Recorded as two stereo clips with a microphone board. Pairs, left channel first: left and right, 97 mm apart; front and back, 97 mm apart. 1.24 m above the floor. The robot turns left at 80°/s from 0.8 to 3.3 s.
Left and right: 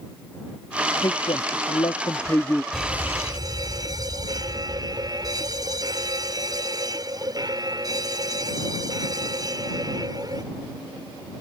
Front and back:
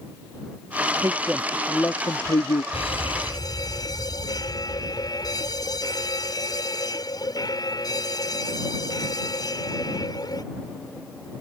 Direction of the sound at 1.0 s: 135° left.